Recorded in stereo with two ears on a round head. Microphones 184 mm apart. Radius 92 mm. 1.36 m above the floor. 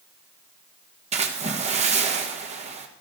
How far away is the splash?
About 1.5 m.